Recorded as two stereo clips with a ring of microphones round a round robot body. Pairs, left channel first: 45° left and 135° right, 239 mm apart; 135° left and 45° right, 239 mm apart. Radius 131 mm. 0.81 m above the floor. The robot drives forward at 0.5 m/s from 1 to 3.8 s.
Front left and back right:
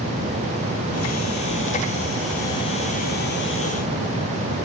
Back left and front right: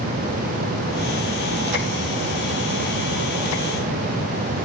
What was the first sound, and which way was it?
Only background noise.